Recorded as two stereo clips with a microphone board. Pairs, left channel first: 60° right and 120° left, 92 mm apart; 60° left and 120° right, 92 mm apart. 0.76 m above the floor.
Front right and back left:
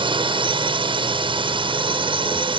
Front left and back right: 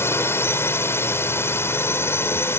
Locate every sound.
0.0 s a drone: 120° left